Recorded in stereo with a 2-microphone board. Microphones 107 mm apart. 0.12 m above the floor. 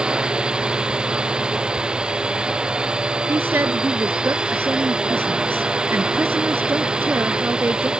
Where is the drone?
10° right (ahead or behind).